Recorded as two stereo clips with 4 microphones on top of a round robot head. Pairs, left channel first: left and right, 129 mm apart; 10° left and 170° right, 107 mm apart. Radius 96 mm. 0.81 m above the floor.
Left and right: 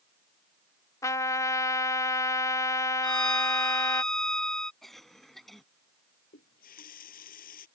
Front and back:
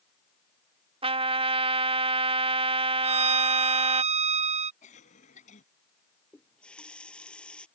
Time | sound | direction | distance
1.0 | a trumpet | 160° left | ?
3.0 | a violin | 175° left | ?
4.8 | a cough | straight ahead | ?
6.3 | a running tap | 90° left | ?